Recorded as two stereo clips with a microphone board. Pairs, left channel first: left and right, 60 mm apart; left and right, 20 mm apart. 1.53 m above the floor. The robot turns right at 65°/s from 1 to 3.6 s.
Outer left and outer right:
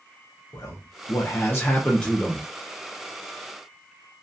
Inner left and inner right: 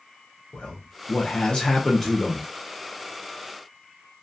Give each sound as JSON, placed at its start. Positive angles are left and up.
{"t": 0.5, "sound": "a man speaking", "azimuth_deg": 95, "distance_m": 0.6}